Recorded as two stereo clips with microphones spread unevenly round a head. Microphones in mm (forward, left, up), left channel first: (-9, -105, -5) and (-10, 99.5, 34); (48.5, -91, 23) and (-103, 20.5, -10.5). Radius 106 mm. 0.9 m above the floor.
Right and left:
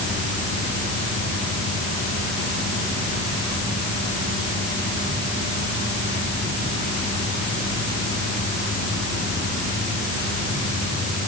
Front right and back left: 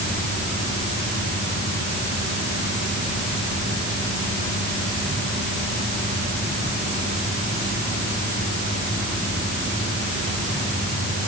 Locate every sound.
Only background noise.